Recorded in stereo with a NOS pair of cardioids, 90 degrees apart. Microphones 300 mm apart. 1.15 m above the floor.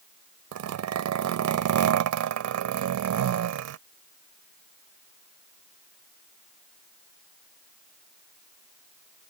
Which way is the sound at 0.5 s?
65° right.